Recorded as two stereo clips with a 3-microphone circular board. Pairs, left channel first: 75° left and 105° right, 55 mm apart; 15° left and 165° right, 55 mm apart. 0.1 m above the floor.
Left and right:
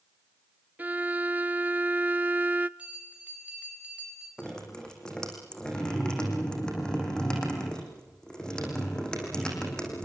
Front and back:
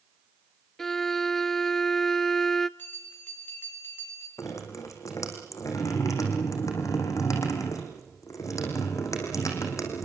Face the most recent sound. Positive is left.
turn(degrees=0)